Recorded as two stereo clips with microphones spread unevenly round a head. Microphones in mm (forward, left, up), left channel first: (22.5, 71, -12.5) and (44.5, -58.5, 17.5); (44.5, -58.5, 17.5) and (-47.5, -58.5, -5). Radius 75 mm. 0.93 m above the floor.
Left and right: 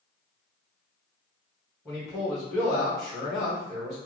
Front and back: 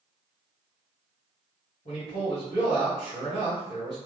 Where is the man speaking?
20° left, 1.4 m.